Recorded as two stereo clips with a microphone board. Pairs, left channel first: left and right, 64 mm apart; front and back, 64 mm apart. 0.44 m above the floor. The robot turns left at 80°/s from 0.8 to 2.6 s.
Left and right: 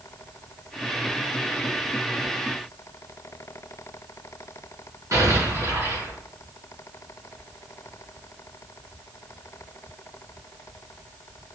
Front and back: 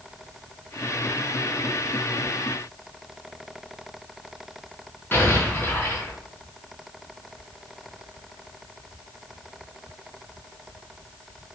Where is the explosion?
60° right, 5 m.